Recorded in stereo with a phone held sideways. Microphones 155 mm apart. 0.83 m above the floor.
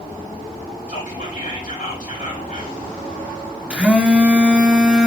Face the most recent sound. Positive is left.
turn(degrees=-10)  # may be behind; listen again after turning